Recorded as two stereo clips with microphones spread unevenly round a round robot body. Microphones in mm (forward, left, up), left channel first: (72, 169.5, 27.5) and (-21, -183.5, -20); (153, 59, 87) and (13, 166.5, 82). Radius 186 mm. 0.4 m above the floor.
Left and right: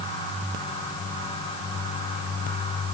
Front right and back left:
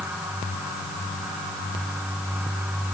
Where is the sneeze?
No sneeze in this recording.